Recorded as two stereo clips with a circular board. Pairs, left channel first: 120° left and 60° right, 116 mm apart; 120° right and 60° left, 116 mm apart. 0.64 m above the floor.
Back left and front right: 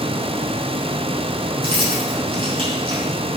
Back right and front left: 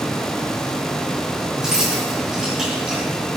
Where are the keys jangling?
25° right, 4.5 m.